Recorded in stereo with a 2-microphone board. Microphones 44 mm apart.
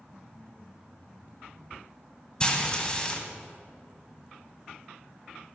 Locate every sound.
2.4 s frying: 20° left (ahead or behind), 1.6 m